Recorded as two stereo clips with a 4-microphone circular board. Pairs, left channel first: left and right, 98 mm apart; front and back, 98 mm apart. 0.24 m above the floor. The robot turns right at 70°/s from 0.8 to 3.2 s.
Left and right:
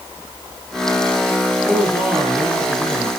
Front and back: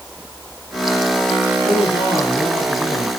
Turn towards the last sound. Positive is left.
turn(degrees=115)